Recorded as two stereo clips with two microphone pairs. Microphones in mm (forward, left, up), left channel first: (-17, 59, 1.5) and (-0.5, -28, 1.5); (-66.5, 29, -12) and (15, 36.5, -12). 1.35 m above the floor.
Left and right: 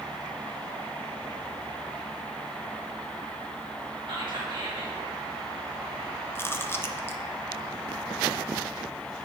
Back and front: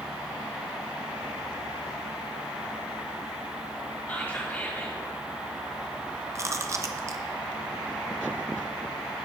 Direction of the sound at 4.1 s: 110° right.